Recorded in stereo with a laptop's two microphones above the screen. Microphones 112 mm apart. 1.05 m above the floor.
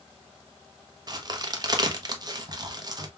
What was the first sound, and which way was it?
A crack, 35° right (ahead or behind).